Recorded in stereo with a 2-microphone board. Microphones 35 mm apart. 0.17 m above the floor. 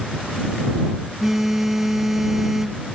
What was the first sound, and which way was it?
A phone buzzing, 10° right (ahead or behind).